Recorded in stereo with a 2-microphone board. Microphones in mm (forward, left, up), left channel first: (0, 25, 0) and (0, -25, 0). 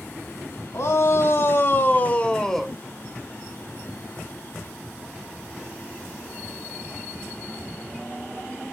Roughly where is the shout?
Left.